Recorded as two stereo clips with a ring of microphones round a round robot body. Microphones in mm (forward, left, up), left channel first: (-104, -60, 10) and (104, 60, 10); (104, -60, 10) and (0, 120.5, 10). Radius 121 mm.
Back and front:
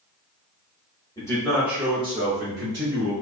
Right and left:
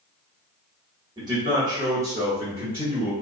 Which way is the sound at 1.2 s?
160° left.